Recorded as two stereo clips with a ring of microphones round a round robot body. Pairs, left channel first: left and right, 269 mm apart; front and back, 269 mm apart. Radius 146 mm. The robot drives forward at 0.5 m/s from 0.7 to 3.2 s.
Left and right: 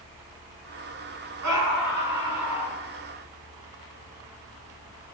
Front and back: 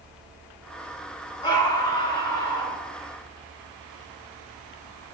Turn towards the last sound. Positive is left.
turn(degrees=-80)